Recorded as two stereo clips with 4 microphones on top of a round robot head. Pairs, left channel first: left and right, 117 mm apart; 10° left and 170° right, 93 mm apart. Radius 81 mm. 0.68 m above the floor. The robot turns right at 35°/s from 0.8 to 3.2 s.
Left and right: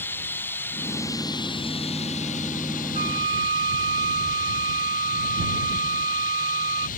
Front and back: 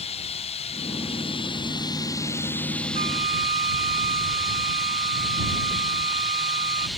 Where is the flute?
135° right; by 6.9 s 125° right.